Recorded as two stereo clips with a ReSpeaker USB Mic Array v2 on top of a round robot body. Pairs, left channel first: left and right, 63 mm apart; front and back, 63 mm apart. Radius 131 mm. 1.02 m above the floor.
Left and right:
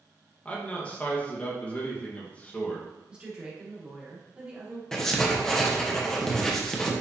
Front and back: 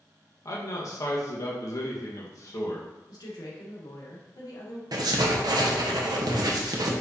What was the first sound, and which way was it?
A man speaking, 25° left.